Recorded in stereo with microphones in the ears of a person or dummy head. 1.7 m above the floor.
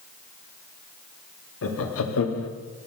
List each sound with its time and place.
1.6 s laughter: 80° left, 1.1 m